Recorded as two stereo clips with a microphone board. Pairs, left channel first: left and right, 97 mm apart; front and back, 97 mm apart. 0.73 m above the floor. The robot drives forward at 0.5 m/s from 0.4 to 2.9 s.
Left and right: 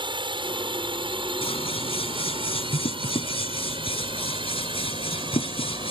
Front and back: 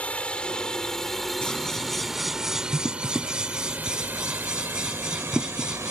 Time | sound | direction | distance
0.0 | a drone | 75° right | ?
1.4 | scissors | 85° left | ?